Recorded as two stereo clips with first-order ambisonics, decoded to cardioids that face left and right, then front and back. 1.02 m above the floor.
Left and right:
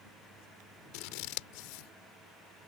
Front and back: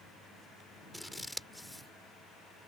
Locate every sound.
0.9 s scissors: 90° left